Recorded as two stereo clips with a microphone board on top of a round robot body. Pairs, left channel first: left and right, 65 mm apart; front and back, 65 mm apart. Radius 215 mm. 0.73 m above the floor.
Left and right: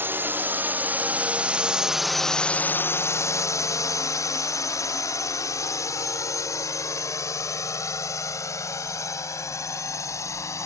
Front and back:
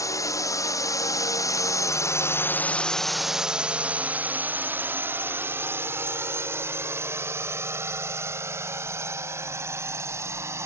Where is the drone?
35° right; by 10.7 s 130° left.